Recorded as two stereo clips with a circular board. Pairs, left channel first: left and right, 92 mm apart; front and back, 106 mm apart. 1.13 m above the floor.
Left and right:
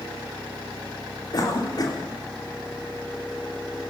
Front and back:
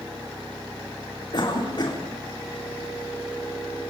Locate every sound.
1.3 s a cough: 45° left, 3.5 m